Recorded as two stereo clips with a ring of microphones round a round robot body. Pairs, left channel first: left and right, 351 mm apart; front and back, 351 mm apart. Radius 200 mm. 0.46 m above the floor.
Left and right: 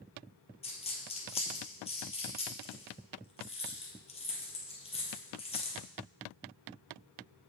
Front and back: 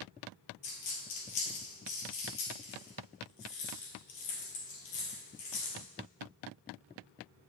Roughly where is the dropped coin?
Ahead.